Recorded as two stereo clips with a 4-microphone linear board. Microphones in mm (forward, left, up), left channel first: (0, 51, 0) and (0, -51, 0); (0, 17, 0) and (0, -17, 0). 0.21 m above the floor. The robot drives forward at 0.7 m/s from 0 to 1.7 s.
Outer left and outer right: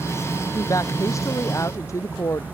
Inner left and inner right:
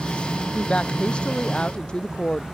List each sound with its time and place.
0.6 s a woman speaking: 35° left (ahead or behind); by 2.4 s 30° left (ahead or behind)